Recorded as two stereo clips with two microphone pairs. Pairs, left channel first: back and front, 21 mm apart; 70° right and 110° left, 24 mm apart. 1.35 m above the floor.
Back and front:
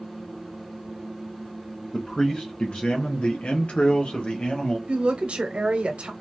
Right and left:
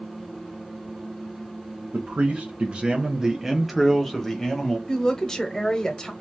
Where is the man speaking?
120° left, 0.9 m; by 4.8 s 140° right, 1.4 m.